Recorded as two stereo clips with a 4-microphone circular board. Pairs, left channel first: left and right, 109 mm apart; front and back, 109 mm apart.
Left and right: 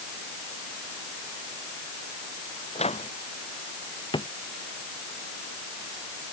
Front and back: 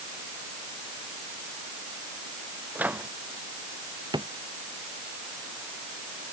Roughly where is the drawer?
Behind left.